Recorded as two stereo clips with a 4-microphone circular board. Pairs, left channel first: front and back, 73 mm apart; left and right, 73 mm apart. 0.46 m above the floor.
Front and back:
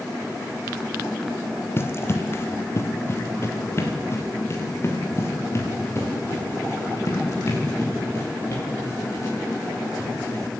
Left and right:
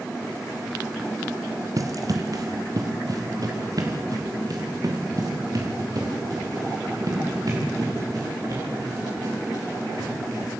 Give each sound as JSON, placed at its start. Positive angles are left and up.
{"t": 1.8, "sound": "running footsteps", "azimuth_deg": -55, "distance_m": 1.0}